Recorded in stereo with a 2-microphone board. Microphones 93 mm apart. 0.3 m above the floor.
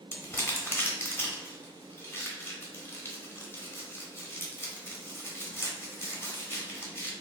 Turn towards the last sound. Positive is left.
turn(degrees=25)  # may be behind; listen again after turning